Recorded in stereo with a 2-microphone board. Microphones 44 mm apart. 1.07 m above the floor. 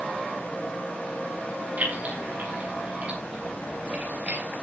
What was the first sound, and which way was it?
Keys jangling, 40° right (ahead or behind).